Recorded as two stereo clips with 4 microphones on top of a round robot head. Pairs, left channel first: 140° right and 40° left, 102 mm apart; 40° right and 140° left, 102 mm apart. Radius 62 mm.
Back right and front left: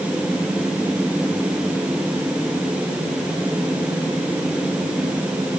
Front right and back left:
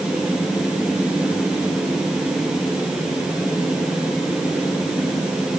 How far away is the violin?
I don't hear a violin.